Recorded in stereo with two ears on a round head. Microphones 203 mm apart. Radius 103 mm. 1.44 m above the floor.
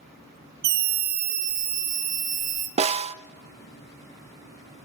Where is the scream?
45° right (ahead or behind), 0.8 m; by 2.7 s 35° right (ahead or behind), 2 m.